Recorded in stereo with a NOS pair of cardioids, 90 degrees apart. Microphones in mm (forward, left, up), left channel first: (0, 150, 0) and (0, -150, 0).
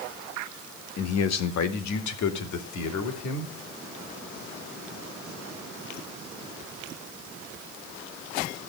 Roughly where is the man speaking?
Ahead left.